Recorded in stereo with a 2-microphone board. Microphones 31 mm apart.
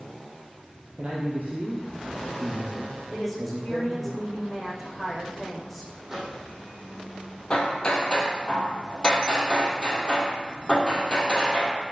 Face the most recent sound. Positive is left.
turn(degrees=25)  # may be behind; listen again after turning